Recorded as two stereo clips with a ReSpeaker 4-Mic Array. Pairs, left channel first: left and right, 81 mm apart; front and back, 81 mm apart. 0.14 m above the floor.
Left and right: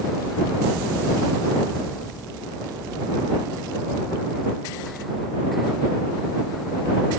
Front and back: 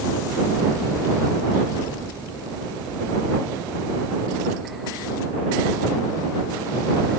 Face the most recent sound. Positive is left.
No sound to turn to.